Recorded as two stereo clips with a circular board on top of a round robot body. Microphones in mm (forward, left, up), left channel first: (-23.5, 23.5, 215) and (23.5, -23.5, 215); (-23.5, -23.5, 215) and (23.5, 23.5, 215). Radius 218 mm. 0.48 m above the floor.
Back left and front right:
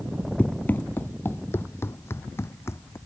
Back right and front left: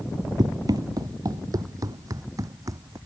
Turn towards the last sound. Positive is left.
turn(degrees=80)